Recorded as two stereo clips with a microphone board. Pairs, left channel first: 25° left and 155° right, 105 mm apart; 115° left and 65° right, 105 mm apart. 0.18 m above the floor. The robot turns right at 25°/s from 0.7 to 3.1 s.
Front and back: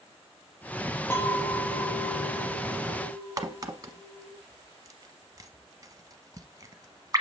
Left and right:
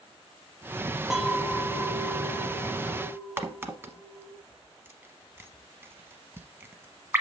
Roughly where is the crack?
Behind right.